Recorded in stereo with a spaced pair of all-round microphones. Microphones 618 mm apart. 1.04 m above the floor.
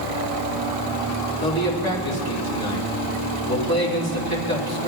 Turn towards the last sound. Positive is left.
turn(degrees=35)  # may be behind; listen again after turning